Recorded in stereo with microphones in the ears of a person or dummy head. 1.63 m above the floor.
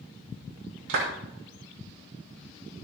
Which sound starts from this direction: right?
A clap, at 0.9 s.